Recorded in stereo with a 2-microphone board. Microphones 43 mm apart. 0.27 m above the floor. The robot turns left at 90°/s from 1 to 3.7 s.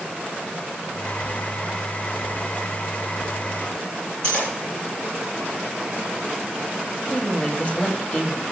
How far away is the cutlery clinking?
About 3.5 m.